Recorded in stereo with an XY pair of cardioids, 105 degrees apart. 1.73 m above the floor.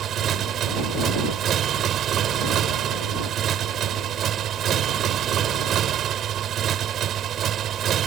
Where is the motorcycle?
65° right.